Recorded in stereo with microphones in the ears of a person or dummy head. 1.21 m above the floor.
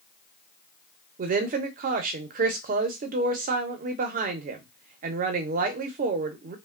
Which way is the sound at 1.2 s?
40° right (ahead or behind).